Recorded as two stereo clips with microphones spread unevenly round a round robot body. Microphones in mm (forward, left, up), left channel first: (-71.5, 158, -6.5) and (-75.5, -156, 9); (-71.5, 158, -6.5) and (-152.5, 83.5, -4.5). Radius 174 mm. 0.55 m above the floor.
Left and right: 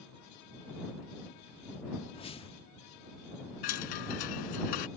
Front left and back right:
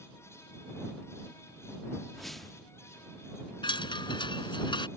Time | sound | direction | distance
2.1 | a whoosh | 130° left | ?
3.6 | a chime | 90° left | ?